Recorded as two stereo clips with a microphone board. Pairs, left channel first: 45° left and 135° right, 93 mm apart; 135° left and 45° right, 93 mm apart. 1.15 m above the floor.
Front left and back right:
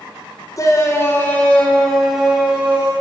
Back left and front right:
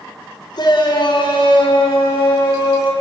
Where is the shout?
100° left, 3.5 m; by 2.9 s 155° left, 3.5 m.